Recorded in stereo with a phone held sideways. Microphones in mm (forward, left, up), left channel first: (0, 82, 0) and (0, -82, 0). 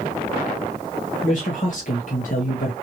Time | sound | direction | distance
1.2 | a man speaking | 50° left (ahead or behind) | 1.8 m